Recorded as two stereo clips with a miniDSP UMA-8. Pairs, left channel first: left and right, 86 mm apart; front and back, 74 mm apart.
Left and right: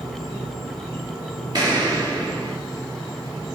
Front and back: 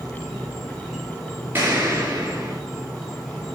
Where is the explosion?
120° right, 3.5 m.